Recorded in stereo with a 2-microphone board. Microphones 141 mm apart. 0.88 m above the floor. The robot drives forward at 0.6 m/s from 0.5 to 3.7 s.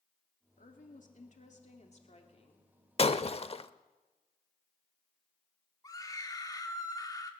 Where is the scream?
25° left (ahead or behind), 2.5 m.